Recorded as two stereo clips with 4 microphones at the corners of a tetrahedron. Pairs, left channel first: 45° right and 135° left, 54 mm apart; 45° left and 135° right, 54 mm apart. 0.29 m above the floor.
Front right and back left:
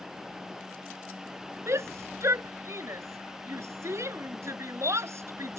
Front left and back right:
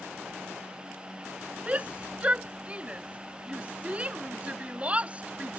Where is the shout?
160° left.